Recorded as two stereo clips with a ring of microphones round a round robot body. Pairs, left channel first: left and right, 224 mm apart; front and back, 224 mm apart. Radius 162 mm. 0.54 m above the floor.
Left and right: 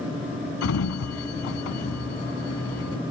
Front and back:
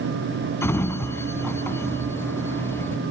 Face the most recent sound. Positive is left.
turn(degrees=80)